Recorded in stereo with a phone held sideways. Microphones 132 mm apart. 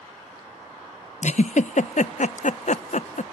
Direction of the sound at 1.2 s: 65° left (ahead or behind).